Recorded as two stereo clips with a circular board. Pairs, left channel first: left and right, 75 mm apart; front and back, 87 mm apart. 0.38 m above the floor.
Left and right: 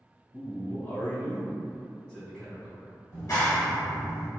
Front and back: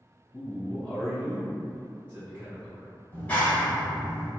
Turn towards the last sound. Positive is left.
turn(degrees=65)